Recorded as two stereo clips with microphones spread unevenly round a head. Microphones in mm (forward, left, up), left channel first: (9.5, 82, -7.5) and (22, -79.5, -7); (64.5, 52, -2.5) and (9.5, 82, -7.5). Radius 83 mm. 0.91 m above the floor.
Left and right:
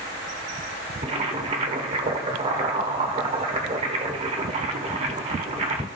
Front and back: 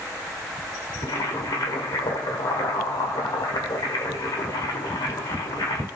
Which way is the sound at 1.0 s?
35° right.